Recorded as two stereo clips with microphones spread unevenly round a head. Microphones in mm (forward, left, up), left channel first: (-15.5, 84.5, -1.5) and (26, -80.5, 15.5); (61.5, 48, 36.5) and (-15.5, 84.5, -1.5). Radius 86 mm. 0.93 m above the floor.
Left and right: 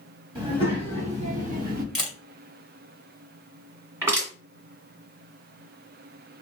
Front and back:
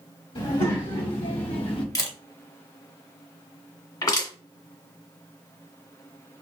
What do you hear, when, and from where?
0.3 s a child speaking: 15° right, 2.0 m; by 1.9 s 45° right, 0.9 m
1.9 s a camera shutter: 15° left, 1.6 m
4.0 s crushing: 5° right, 1.9 m